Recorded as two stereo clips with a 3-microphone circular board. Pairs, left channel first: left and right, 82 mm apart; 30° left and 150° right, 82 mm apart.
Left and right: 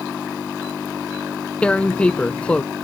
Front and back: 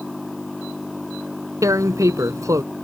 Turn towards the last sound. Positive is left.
turn(degrees=165)